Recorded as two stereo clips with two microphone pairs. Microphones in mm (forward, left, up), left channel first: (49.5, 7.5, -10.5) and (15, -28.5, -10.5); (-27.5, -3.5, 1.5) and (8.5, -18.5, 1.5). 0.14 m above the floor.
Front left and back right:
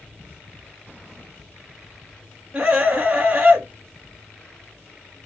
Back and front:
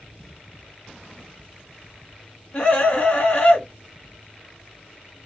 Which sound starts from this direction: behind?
A scream, at 2.5 s.